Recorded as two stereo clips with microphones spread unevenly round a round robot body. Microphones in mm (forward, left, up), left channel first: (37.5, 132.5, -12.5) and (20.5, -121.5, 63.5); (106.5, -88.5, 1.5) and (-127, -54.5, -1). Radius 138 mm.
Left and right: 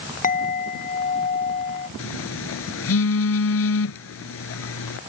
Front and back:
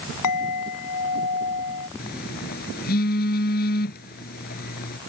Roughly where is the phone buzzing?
Ahead left.